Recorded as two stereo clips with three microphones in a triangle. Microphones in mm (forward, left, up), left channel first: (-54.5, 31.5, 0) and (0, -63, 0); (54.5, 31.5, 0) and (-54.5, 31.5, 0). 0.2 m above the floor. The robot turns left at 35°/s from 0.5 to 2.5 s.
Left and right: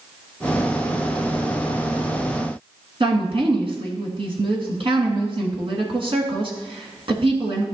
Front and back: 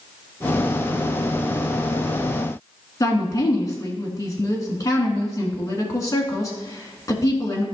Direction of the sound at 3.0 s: 50° right.